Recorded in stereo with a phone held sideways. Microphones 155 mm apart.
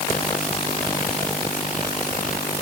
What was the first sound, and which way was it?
Only background noise.